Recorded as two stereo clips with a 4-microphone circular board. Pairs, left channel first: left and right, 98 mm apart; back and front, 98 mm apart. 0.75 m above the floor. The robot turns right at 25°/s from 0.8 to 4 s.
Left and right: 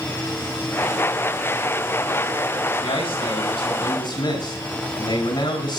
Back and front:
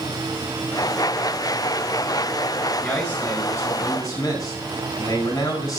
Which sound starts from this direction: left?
A man speaking, at 2.8 s.